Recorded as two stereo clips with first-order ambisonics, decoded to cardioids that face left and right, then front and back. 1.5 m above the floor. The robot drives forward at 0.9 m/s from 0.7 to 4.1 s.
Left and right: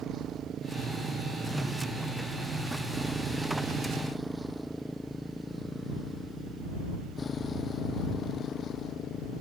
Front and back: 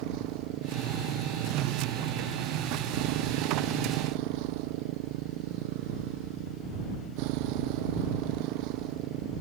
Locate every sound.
0.0 s a motorcycle: 150° right; by 9.4 s 145° left